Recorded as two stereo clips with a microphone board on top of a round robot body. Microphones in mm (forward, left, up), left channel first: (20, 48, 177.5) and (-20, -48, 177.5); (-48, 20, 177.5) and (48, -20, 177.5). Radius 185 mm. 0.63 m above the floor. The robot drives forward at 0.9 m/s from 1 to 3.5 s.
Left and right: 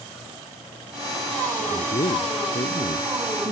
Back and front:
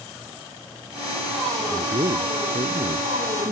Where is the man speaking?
20° left; by 3.5 s 25° left.